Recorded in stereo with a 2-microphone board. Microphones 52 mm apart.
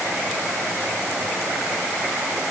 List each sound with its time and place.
Only background noise.